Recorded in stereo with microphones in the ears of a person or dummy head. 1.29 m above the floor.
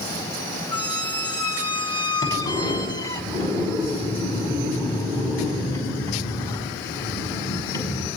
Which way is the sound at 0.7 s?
25° left (ahead or behind).